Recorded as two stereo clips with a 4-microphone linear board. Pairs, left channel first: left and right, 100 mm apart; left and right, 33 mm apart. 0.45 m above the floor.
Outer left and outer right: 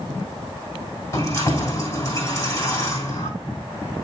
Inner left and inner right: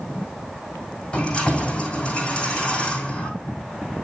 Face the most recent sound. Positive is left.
turn(degrees=30)  # may be behind; listen again after turning